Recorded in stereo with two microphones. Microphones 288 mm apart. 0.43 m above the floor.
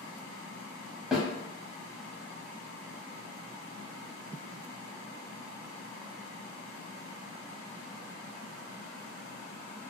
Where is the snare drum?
Centre (ahead or behind), 1.1 m.